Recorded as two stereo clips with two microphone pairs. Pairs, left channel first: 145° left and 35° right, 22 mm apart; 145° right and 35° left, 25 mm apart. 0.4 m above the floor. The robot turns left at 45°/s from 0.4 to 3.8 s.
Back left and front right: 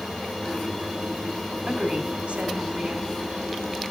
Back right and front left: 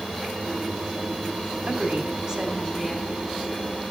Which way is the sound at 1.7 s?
10° left.